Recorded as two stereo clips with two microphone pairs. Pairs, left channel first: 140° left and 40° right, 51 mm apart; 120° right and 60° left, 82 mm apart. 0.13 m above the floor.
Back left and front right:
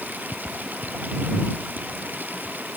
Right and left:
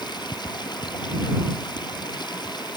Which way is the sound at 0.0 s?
90° right.